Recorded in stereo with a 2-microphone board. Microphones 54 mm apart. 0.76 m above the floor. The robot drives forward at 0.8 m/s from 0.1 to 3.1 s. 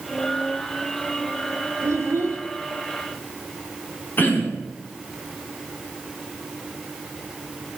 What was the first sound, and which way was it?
A child speaking, 50° right (ahead or behind).